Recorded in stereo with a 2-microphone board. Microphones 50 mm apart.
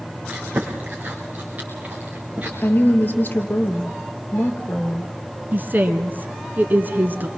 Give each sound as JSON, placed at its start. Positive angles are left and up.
{"t": 0.3, "sound": "chewing", "side_deg": -35, "distance_m": 5.0}
{"t": 2.6, "sound": "a woman speaking", "side_deg": 35, "distance_m": 3.0}
{"t": 5.5, "sound": "a woman speaking", "side_deg": -40, "distance_m": 1.5}